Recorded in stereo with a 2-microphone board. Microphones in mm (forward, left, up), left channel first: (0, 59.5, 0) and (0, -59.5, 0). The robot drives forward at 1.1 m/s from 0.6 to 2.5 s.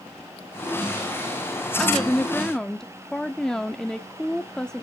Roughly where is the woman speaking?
Centre.